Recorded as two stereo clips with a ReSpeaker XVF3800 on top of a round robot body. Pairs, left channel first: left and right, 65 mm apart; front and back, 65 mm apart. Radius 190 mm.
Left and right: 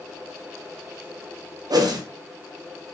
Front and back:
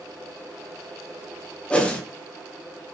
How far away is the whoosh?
About 0.6 m.